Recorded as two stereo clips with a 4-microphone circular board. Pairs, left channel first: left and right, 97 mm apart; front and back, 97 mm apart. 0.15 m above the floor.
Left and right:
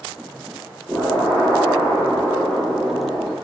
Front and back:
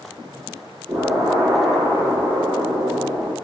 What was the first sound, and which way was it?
An explosion, 155° left.